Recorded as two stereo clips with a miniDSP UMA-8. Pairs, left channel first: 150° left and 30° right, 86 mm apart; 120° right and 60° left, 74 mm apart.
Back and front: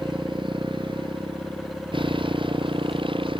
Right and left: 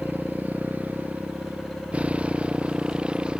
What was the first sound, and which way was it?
A motorcycle, 5° right.